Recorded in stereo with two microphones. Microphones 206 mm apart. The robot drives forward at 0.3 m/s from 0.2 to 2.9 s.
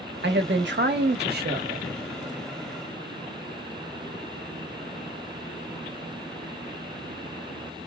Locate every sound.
0.2 s a man speaking: 60° right (ahead or behind), 0.8 m; by 1.9 s 45° right (ahead or behind), 1.0 m